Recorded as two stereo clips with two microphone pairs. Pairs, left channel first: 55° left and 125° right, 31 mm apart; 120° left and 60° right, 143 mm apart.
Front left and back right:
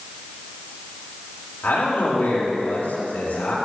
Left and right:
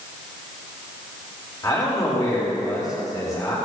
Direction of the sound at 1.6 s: 55° left.